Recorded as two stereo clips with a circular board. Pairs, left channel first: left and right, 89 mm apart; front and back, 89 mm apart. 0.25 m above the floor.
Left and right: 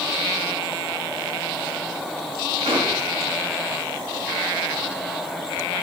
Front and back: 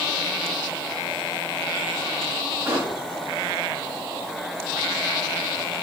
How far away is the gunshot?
About 7 m.